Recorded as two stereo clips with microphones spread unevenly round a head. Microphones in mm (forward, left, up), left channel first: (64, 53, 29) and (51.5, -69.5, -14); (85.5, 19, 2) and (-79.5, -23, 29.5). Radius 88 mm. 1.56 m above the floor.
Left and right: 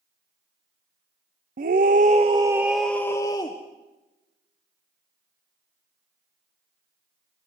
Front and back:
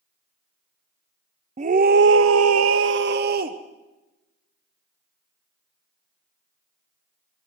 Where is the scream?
110° right, 0.7 m; by 3.6 s 150° left, 1.0 m.